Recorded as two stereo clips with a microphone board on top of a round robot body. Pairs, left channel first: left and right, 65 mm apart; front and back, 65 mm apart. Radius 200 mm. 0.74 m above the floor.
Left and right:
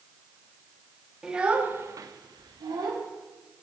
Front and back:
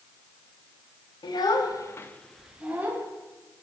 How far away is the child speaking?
About 0.9 m.